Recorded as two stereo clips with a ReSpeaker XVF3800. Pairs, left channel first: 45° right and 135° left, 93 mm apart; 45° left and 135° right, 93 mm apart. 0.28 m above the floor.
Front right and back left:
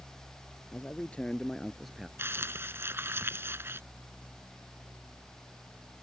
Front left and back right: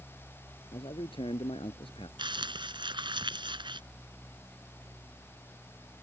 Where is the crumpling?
160° right.